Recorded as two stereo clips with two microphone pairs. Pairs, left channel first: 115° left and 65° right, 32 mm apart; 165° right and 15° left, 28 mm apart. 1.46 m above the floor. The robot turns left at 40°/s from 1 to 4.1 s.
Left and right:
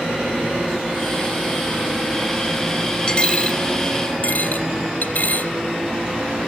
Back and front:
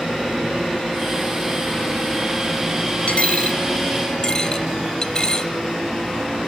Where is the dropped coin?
Straight behind, 2.5 m; by 5.5 s 140° left, 2.5 m.